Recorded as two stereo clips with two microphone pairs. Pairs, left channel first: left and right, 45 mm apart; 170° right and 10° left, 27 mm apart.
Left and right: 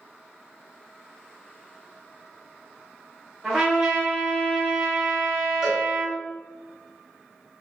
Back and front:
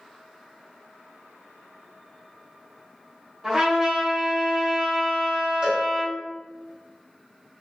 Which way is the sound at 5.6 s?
10° right.